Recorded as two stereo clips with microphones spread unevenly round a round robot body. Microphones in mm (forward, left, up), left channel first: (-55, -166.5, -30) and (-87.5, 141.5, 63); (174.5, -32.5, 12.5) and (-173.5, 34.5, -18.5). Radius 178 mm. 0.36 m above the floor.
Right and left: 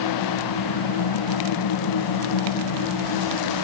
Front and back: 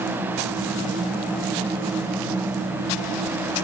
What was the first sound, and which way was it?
Only background noise.